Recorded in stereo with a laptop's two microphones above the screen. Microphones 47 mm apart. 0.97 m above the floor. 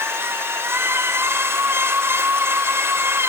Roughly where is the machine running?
Right.